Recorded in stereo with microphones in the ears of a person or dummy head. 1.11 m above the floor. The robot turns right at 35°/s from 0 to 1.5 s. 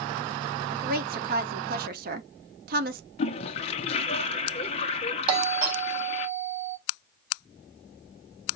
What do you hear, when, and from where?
0.7 s a woman speaking: 35° right (ahead or behind), 0.7 m; by 3.0 s 40° right (ahead or behind), 0.7 m
3.2 s a toilet flushing: 40° left (ahead or behind), 0.9 m
5.3 s a doorbell: 35° right (ahead or behind), 4 m